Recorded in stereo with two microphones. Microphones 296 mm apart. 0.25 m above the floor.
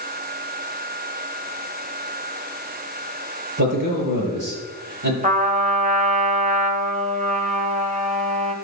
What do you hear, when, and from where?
3.6 s a man speaking: 75° right (ahead or behind), 5 m
5.2 s a trumpet: 25° right (ahead or behind), 0.9 m